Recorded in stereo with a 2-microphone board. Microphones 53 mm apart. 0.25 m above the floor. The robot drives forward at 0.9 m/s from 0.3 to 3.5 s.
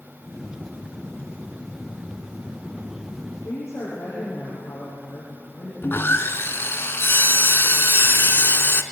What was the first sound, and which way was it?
A woman speaking, 60° left (ahead or behind).